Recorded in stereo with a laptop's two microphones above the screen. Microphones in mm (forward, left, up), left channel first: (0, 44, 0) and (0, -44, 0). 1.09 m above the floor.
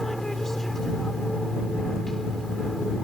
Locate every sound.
0.0 s an aircraft: 5° left (ahead or behind)